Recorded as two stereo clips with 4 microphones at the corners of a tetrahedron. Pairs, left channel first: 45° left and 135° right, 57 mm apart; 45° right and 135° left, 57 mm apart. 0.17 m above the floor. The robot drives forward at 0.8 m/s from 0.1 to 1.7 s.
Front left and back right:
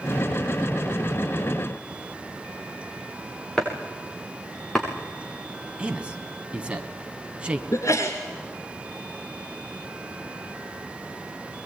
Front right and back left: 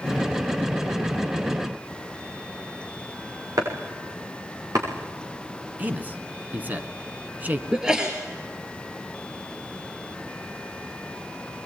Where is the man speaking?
165° left, 1.7 m.